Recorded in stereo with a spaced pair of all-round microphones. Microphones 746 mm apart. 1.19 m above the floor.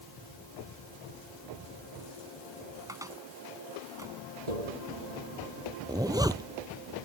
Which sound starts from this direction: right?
Tapping, at 4.5 s.